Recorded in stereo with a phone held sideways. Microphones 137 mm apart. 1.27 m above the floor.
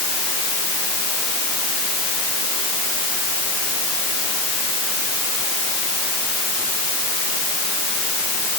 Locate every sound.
Only background noise.